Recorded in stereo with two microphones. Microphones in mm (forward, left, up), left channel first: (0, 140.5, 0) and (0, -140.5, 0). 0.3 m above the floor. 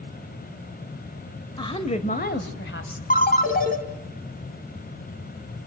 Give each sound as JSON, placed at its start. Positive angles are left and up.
{"t": 1.6, "sound": "a woman speaking", "side_deg": 15, "distance_m": 1.2}
{"t": 3.1, "sound": "a ringtone", "side_deg": 30, "distance_m": 1.6}